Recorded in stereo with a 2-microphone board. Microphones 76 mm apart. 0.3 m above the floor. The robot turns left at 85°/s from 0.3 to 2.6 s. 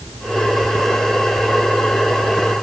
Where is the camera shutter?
I don't hear a camera shutter.